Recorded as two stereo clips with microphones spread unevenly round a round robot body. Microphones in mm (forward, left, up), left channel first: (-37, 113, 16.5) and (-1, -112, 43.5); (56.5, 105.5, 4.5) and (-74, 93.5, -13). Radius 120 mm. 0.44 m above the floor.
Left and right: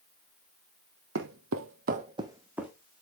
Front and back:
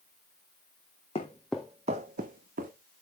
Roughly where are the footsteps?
Ahead right.